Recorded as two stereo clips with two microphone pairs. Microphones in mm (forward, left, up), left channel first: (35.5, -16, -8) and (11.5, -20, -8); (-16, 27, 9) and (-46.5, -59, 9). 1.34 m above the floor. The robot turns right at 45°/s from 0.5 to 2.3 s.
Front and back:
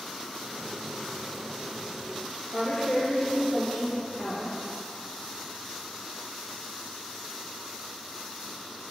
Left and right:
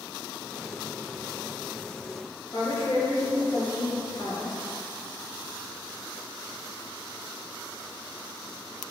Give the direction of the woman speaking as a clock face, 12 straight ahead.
11 o'clock.